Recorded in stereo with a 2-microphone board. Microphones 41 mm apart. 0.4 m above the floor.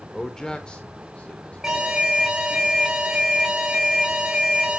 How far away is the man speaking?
About 1.0 m.